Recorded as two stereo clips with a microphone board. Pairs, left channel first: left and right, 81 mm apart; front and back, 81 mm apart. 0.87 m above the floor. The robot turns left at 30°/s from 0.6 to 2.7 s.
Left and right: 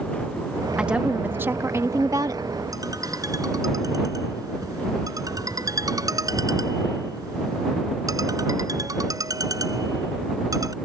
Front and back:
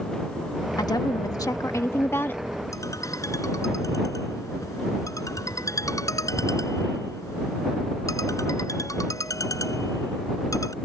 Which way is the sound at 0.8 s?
10° right.